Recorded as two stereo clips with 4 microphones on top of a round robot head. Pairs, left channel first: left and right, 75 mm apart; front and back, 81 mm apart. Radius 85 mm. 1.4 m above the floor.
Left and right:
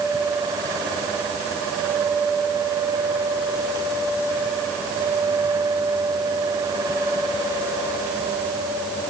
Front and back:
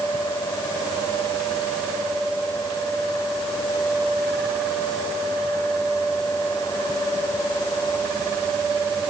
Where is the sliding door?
I don't hear a sliding door.